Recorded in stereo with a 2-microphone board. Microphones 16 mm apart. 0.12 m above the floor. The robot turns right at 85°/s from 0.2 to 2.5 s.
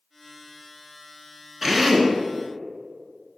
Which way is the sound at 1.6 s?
20° right (ahead or behind).